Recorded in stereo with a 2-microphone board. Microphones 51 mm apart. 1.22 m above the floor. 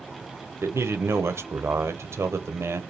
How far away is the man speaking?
About 0.6 m.